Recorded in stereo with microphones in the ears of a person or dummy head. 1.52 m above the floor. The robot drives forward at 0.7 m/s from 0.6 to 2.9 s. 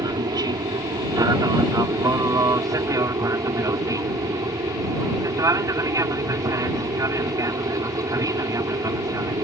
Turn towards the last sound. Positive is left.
turn(degrees=-15)  # may be behind; listen again after turning